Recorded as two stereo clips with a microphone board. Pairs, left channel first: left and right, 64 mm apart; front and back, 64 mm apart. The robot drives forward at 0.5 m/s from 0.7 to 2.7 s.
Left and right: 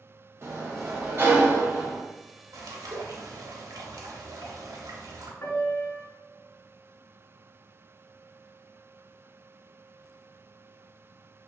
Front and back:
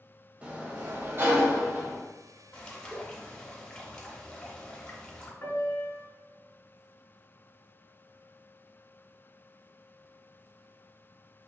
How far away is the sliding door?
About 0.6 m.